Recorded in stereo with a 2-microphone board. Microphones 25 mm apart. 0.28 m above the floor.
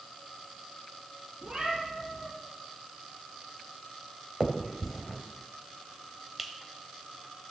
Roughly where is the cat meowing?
Right.